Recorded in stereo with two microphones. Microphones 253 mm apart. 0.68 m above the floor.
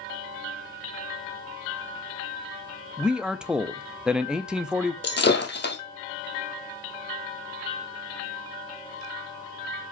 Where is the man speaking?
5° right (ahead or behind), 0.6 m.